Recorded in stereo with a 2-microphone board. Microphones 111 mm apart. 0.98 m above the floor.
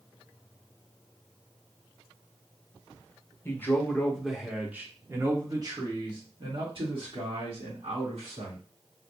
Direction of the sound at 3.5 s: 20° left (ahead or behind).